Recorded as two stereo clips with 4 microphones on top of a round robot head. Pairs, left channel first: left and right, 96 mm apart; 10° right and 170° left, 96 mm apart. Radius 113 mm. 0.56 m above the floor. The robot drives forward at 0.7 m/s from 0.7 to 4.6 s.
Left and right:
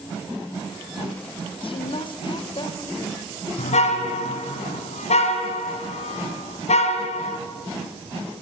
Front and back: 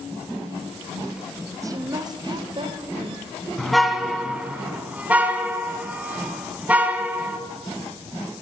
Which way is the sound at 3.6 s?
80° left.